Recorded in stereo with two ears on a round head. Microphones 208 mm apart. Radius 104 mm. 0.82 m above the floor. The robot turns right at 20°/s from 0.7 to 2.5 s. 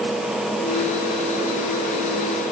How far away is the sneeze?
No sneeze in this recording.